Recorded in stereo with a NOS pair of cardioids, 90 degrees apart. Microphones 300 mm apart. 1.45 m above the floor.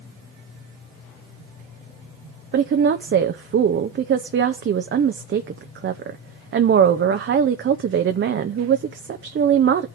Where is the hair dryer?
No hair dryer in this recording.